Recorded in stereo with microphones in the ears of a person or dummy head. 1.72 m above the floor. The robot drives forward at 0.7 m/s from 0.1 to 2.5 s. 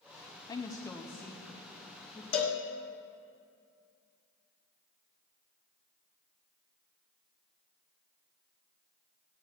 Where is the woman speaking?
20° left (ahead or behind), 0.6 m; by 2.2 s 5° left (ahead or behind), 1.8 m.